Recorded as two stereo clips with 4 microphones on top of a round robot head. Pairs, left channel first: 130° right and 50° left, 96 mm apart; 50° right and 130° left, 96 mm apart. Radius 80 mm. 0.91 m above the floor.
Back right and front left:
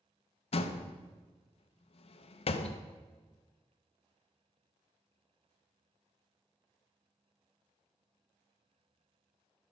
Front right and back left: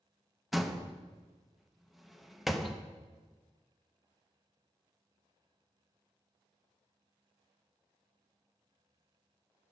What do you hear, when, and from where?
0.5 s a door slam: 140° right, 0.6 m